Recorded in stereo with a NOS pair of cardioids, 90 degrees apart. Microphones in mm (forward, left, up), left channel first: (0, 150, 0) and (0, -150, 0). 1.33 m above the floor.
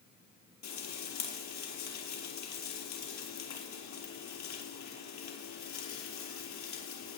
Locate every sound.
0.6 s frying: 65° left, 6 m